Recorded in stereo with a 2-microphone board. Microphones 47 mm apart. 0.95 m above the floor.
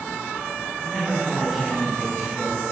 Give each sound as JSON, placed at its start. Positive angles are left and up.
{"t": 0.8, "sound": "a man speaking", "side_deg": 0, "distance_m": 6.0}